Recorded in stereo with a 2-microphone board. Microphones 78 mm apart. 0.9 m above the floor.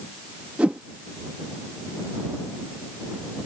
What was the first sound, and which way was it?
A whoosh, 15° right (ahead or behind).